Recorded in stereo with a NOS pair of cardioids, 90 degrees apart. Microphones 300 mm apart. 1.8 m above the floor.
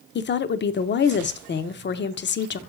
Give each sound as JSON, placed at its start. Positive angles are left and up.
{"t": 0.1, "sound": "a woman speaking", "azimuth_deg": 35, "distance_m": 0.7}